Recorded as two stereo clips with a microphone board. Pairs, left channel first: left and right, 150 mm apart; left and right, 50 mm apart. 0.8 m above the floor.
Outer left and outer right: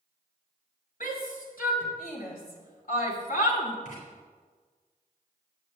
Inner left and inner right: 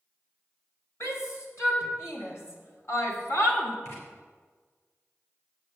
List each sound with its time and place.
1.0 s a shout: 80° left, 4.5 m; by 3.8 s 65° left (ahead or behind), 2.5 m
3.9 s writing: 60° left (ahead or behind), 4.5 m